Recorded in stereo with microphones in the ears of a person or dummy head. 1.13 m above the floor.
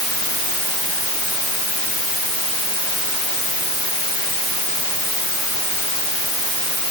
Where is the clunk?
No clunk in this recording.